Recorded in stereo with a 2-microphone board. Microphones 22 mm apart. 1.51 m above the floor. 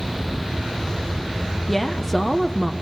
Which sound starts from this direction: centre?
A woman speaking, at 1.7 s.